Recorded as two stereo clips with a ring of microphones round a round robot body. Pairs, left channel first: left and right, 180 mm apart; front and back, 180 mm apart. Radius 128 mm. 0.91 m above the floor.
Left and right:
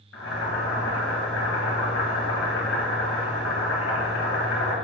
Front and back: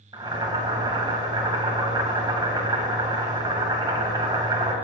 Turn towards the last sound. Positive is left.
turn(degrees=115)